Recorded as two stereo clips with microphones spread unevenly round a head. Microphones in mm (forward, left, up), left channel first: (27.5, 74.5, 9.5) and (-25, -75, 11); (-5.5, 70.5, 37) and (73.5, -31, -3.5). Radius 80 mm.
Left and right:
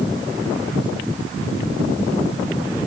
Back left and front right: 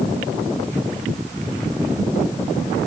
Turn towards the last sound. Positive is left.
No sound to turn to.